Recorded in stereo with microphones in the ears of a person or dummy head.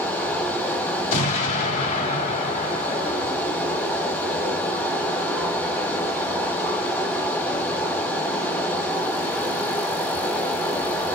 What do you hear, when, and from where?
0.0 s running water: 10° left (ahead or behind), 1.0 m
1.1 s an explosion: 45° left (ahead or behind), 1.9 m